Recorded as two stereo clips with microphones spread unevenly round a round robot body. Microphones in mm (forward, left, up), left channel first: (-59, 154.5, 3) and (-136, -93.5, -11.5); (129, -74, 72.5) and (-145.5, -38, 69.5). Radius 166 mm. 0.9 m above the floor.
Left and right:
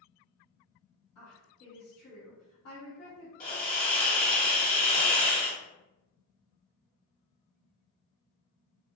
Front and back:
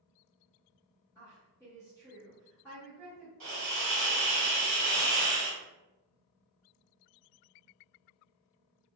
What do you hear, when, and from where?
1.1 s a woman speaking: 70° left, 1.4 m
3.4 s a hiss: 125° left, 1.4 m